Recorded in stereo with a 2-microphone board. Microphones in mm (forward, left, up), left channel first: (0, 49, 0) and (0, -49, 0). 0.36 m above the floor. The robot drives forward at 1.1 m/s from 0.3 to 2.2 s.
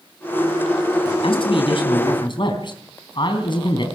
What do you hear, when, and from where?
1.2 s a man speaking: 60° left (ahead or behind), 3 m; by 3.9 s 50° left (ahead or behind), 3.5 m